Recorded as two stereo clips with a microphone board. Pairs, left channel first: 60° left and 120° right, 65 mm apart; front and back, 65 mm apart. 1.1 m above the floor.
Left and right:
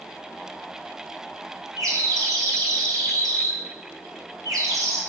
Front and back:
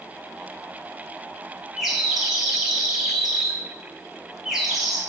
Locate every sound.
1.8 s a bird: 95° right, 2.5 m